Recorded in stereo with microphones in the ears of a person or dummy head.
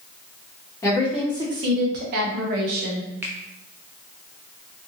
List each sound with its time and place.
0.8 s a woman speaking: 15° left (ahead or behind), 0.6 m; by 3.1 s 60° right (ahead or behind), 1.2 m
3.2 s a finger snap: 10° right (ahead or behind), 0.6 m